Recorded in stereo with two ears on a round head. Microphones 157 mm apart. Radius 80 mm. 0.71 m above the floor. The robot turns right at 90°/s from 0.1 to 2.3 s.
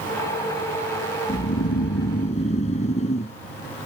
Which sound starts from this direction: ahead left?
Snoring, at 1.3 s.